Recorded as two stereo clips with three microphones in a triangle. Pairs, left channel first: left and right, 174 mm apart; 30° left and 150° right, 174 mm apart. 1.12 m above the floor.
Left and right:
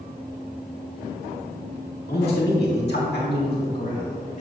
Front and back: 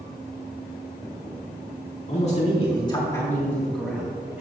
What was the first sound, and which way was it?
A man speaking, 70° left.